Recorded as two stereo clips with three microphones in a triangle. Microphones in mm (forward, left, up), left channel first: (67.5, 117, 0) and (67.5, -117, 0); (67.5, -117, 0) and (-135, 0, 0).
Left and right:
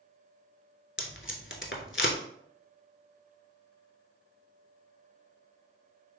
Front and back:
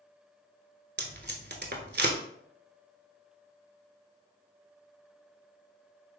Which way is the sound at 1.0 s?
115° left.